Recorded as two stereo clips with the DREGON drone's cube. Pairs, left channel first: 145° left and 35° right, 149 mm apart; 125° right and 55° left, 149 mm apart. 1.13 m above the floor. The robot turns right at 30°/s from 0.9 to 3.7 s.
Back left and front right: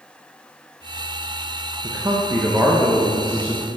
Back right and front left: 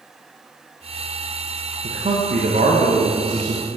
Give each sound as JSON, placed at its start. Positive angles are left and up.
{"t": 1.8, "sound": "a man speaking", "azimuth_deg": 25, "distance_m": 0.9}